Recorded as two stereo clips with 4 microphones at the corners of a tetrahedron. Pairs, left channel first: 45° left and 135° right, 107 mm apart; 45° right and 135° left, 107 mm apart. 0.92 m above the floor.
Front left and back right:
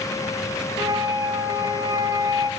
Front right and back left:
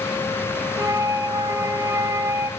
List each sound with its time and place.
0.8 s a flute: 175° right, 1.0 m